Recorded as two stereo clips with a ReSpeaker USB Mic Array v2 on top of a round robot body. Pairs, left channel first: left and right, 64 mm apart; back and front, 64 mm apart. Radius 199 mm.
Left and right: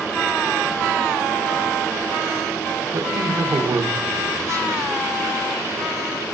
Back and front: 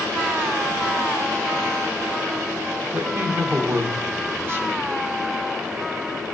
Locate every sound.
2.9 s a man speaking: 55° right, 1.1 m